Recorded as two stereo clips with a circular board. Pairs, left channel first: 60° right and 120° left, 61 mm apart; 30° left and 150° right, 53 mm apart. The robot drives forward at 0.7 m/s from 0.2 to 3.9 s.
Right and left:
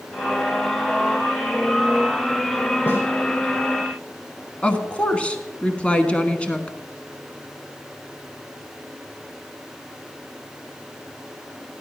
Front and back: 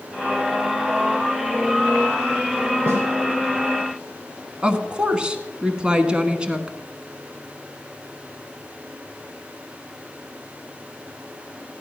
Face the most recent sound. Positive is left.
turn(degrees=-105)